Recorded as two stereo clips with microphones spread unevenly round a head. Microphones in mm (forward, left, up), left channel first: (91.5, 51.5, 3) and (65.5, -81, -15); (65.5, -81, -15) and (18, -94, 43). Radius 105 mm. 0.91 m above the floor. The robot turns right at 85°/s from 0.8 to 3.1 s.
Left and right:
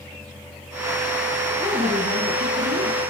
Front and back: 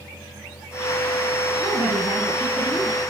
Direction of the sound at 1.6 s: 170° left.